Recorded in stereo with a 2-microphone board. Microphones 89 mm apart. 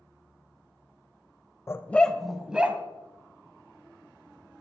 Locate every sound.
1.7 s a dog barking: 30° left (ahead or behind), 0.7 m; by 2.8 s 15° right (ahead or behind), 1.4 m